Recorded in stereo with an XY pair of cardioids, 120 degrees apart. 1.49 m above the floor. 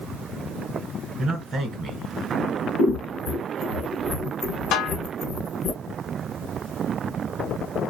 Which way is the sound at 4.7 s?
65° left.